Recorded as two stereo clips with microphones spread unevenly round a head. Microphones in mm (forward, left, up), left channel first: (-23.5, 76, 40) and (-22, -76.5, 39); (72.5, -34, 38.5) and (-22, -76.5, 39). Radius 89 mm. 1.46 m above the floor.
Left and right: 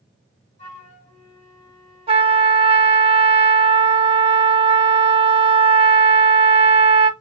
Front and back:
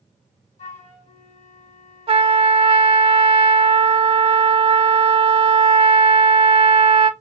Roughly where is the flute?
Ahead left.